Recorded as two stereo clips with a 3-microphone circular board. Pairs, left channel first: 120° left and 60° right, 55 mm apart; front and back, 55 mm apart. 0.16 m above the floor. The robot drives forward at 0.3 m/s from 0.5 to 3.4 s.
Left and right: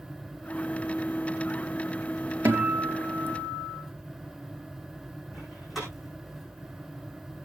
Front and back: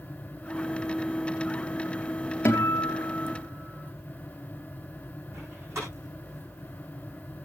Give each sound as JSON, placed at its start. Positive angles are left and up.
{"t": 2.5, "sound": "a guitar", "azimuth_deg": -40, "distance_m": 3.5}
{"t": 5.3, "sound": "a door slam", "azimuth_deg": -150, "distance_m": 6.0}